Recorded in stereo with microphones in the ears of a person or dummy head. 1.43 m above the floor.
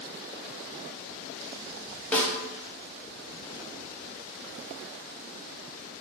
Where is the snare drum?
10° left (ahead or behind), 0.6 m.